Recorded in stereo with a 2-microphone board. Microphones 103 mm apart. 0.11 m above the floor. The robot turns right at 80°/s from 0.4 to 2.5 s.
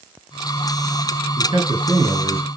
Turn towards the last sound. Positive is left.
turn(degrees=-25)